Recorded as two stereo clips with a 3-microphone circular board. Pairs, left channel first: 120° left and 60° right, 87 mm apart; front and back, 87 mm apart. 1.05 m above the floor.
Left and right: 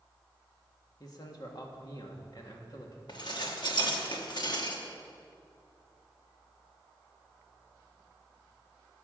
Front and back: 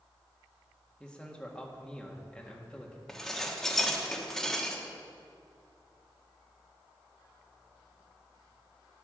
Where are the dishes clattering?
85° left, 1.3 m.